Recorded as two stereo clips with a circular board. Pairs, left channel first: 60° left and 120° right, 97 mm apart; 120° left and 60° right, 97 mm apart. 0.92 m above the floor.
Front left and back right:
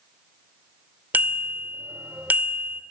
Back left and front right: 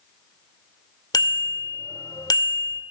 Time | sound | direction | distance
1.1 | a bicycle bell | 170° left | 2 m